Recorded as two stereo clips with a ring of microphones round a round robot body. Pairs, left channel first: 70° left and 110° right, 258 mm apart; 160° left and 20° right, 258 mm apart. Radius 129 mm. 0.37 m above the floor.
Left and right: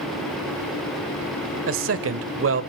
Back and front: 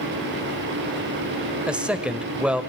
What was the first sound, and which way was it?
A man speaking, 105° right.